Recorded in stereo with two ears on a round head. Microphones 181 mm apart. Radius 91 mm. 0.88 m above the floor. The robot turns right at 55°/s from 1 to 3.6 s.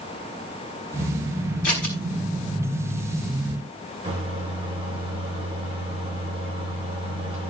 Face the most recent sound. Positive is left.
turn(degrees=-30)  # may be behind; listen again after turning